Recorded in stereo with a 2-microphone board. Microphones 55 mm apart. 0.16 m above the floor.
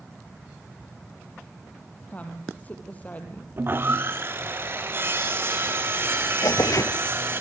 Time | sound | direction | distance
2.1 | a woman speaking | 25° left (ahead or behind) | 4.5 m
3.6 | sawing | 40° right (ahead or behind) | 2.5 m
6.4 | tearing paper | 75° left (ahead or behind) | 0.6 m